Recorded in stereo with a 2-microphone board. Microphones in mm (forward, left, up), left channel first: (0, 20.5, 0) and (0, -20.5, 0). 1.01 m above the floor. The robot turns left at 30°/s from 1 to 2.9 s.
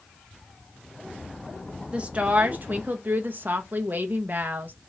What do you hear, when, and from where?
1.9 s a woman speaking: 30° right (ahead or behind), 0.6 m; by 4.7 s 50° right (ahead or behind), 0.6 m